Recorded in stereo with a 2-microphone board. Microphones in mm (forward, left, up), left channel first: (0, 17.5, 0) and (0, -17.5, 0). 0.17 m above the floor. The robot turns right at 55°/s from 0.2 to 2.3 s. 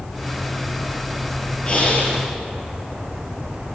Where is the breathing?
25° left, 2.5 m; by 2.2 s 60° left, 2.5 m.